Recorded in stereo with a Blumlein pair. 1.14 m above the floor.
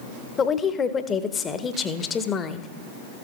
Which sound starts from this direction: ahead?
A woman speaking, at 0.4 s.